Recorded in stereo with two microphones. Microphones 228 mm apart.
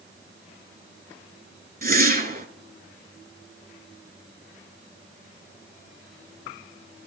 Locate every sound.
1.8 s a whoosh: 40° right (ahead or behind), 0.6 m